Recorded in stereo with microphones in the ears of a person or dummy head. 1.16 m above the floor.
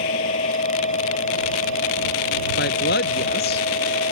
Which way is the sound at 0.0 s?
35° left (ahead or behind).